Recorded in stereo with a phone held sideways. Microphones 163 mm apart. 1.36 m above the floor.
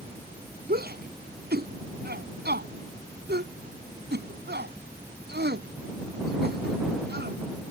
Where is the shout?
70° right (ahead or behind); by 7.7 s 80° right.